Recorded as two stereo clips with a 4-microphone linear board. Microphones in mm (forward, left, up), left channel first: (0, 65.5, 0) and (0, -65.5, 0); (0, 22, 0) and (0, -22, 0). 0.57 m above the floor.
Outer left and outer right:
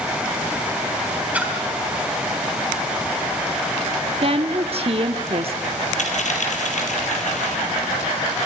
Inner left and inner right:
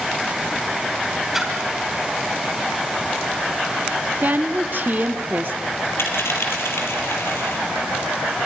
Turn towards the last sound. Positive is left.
turn(degrees=70)  # may be behind; listen again after turning